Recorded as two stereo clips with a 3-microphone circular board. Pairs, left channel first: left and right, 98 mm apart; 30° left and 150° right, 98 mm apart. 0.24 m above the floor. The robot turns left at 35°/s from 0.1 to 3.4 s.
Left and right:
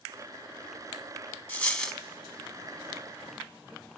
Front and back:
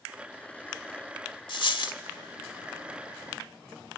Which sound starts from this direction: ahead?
A dropped coin, at 1.5 s.